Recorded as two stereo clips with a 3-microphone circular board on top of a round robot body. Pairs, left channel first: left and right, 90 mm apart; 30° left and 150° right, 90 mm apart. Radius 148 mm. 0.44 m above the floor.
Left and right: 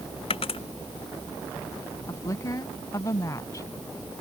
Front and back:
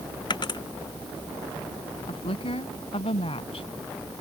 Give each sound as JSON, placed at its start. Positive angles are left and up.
{"t": 0.3, "sound": "a dropped coin", "azimuth_deg": 70}
{"t": 2.1, "sound": "a woman speaking", "azimuth_deg": 35}